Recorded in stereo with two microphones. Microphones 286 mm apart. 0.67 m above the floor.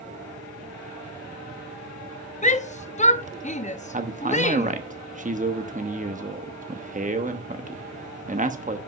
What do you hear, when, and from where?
2.4 s a shout: 25° left (ahead or behind), 0.7 m
3.9 s a man speaking: 25° right (ahead or behind), 0.9 m